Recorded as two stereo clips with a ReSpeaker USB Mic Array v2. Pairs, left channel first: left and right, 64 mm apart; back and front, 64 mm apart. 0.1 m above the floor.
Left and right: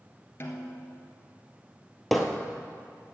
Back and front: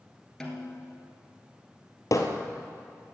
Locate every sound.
0.4 s a snare drum: 100° left, 1.7 m
2.1 s hammering: 175° left, 1.4 m